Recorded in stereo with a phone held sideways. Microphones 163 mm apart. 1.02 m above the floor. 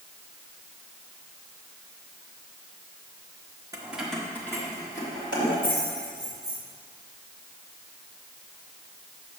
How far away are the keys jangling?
About 0.8 m.